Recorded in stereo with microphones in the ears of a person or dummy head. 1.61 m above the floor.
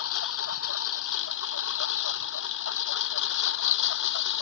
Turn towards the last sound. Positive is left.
turn(degrees=75)  # may be behind; listen again after turning